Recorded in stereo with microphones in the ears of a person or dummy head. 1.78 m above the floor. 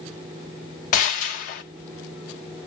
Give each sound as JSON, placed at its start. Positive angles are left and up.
{"t": 0.9, "sound": "a gunshot", "side_deg": 45, "distance_m": 0.9}